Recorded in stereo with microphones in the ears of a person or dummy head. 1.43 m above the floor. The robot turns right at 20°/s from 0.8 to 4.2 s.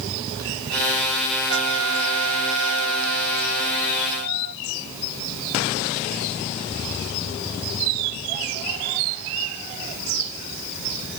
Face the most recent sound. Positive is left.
turn(degrees=-50)